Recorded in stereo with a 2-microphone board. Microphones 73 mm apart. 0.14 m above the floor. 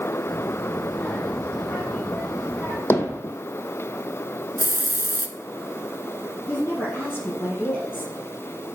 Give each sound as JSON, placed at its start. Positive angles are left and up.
{"t": 0.3, "sound": "a child speaking", "side_deg": 20, "distance_m": 4.0}
{"t": 2.9, "sound": "hammering", "side_deg": 35, "distance_m": 1.2}
{"t": 4.6, "sound": "a hiss", "side_deg": -35, "distance_m": 0.8}
{"t": 6.5, "sound": "a woman speaking", "side_deg": 30, "distance_m": 3.0}